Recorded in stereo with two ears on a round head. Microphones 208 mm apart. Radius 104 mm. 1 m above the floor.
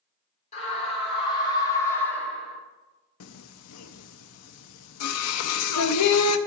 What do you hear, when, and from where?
0.5 s a scream: 30° left (ahead or behind), 2.5 m; by 2.6 s centre (ahead or behind), 1.6 m
3.2 s singing: 70° left (ahead or behind), 0.6 m